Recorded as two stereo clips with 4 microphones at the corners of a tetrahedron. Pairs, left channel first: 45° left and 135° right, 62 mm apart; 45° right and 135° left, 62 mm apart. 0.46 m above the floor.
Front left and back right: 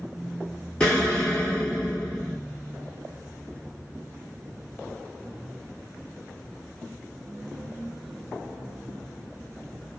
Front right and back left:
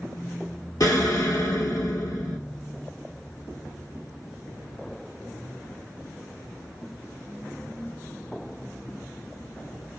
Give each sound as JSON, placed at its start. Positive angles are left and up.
{"t": 0.8, "sound": "an explosion", "azimuth_deg": -30, "distance_m": 2.0}